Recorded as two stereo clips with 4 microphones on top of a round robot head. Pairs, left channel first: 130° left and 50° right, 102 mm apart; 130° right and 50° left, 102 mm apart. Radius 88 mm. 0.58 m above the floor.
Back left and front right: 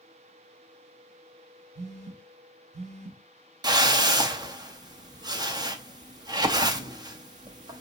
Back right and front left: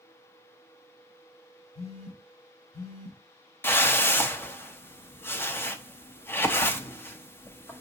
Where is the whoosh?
70° right, 0.7 m.